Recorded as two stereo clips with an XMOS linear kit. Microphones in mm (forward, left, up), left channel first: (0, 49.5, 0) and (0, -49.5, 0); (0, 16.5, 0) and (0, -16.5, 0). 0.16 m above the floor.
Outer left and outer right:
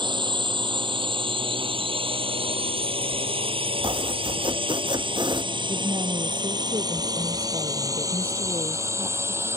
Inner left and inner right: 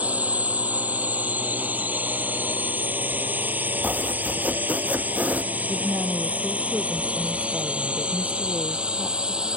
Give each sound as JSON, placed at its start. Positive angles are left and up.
{"t": 0.0, "sound": "a drone", "side_deg": -55}
{"t": 3.8, "sound": "chopping", "side_deg": -50}
{"t": 5.7, "sound": "a woman speaking", "side_deg": -60}